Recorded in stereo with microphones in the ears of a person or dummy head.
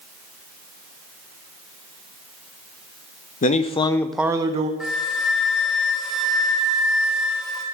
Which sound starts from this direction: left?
A man speaking, at 3.4 s.